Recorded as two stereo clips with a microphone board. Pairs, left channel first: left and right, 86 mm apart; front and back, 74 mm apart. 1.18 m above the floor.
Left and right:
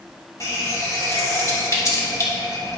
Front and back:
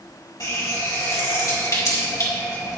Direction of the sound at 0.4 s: 40° left.